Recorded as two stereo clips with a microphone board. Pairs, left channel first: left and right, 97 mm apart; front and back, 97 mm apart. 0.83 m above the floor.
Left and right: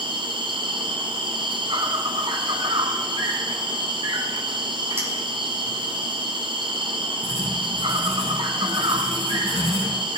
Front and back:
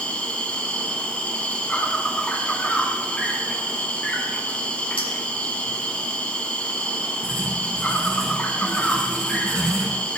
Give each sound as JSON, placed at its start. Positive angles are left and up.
{"t": 0.0, "sound": "an insect", "azimuth_deg": -75, "distance_m": 1.4}
{"t": 5.0, "sound": "a clink", "azimuth_deg": -25, "distance_m": 4.5}
{"t": 7.2, "sound": "writing", "azimuth_deg": 85, "distance_m": 5.5}